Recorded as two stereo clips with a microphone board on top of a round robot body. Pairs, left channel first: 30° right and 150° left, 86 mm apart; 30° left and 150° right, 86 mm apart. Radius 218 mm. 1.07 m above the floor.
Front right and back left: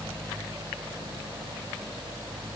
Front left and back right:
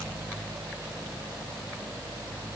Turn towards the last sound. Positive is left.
No sound to turn to.